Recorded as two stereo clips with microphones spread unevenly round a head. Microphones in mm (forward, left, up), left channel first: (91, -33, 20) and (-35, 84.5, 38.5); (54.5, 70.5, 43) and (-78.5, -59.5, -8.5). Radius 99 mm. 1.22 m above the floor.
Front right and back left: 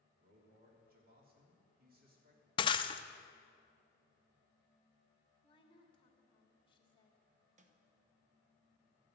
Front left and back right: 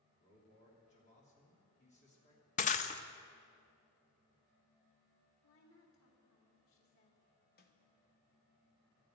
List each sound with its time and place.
0.2 s a man speaking: 100° left, 3 m
2.6 s breaking glass: 20° left, 0.6 m
5.4 s a woman speaking: 20° left, 3 m
7.6 s a snare drum: 90° left, 1.2 m